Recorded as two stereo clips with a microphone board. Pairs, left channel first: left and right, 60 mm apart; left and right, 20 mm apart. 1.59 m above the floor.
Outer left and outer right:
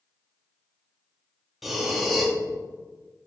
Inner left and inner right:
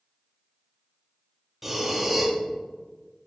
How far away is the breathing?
About 1.2 m.